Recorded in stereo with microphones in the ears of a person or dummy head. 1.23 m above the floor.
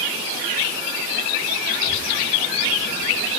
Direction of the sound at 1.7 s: 45° left (ahead or behind).